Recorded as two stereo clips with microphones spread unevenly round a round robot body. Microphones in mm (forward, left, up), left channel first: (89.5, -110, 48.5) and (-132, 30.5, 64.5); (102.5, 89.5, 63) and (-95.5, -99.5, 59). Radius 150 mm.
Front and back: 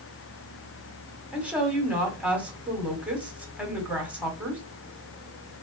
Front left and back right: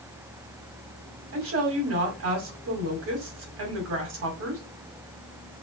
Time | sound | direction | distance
1.3 | a woman speaking | 125° right | 2 m